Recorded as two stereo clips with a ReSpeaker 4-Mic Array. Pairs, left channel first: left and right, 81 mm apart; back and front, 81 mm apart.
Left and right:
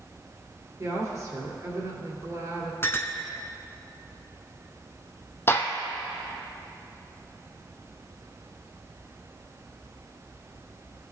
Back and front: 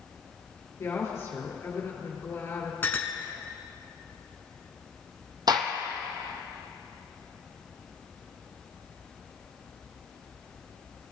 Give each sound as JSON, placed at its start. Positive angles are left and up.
{"t": 0.8, "sound": "a woman speaking", "azimuth_deg": -130, "distance_m": 2.5}
{"t": 2.8, "sound": "a clink", "azimuth_deg": 130, "distance_m": 0.8}
{"t": 5.5, "sound": "a gunshot", "azimuth_deg": 30, "distance_m": 0.9}